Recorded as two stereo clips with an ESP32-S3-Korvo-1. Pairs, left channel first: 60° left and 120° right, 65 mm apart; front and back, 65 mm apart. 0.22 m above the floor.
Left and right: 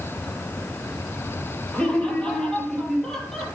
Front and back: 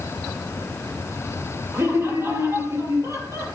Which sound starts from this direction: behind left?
Laughter, at 1.7 s.